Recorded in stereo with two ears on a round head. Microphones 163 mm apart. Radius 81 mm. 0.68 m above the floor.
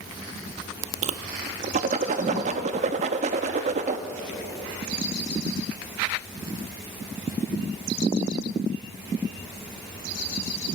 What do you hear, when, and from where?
1.0 s a whoosh: 40° right (ahead or behind), 0.7 m